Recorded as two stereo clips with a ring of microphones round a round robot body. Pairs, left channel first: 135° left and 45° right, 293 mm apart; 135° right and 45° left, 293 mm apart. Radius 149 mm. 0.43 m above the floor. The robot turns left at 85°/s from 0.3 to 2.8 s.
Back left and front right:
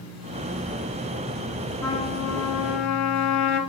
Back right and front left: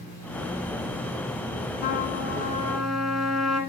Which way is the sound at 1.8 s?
140° right.